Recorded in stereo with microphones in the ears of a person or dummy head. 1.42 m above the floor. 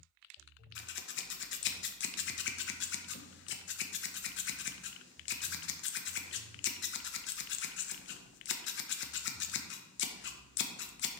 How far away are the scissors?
About 0.7 m.